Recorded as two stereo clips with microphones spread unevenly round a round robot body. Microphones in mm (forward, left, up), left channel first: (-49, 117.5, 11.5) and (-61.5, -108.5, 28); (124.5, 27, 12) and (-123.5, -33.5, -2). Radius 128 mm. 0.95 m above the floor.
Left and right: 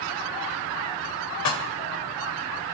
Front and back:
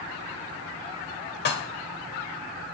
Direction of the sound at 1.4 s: 65° left.